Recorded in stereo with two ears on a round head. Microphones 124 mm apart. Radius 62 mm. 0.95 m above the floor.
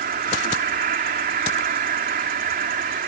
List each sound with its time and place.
0.0 s an insect: 65° right (ahead or behind)